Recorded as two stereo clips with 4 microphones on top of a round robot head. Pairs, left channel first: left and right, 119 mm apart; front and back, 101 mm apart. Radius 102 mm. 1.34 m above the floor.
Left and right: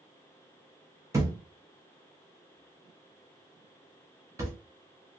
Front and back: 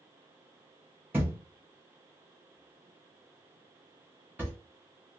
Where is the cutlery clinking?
No cutlery clinking in this recording.